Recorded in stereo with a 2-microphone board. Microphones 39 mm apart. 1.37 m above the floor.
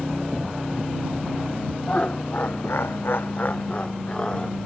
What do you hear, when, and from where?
1.9 s laughter: 35° left (ahead or behind); by 4.6 s 20° left (ahead or behind)